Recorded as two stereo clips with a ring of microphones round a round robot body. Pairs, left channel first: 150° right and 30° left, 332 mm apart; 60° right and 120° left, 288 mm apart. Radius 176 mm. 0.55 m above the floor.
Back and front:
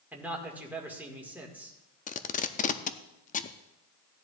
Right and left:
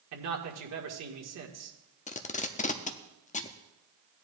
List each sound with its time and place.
0.1 s a man speaking: 115° left, 1.8 m
2.1 s tape being pulled: 100° right, 0.6 m